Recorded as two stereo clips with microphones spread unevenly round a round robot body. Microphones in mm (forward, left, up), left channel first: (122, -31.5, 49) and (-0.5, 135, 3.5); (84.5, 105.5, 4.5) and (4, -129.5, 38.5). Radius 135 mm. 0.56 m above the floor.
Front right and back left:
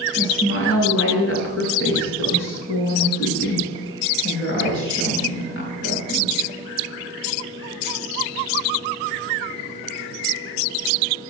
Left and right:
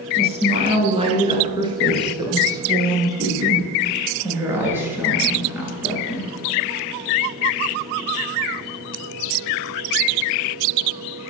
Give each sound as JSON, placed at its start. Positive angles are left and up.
{"t": 0.2, "sound": "a woman speaking", "azimuth_deg": -45, "distance_m": 10.0}